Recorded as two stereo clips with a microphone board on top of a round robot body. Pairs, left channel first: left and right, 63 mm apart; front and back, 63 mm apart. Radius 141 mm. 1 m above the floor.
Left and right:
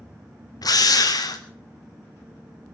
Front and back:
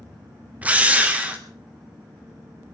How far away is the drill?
About 2.5 m.